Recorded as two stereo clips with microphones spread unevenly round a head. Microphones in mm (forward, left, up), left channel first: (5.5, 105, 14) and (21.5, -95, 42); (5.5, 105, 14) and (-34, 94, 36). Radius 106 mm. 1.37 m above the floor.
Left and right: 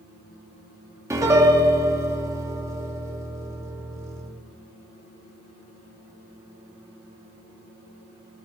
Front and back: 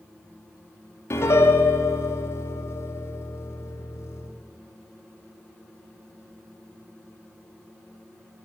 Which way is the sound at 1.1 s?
10° right.